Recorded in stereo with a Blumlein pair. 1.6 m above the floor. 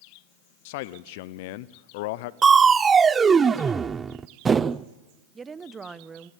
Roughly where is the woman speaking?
Ahead.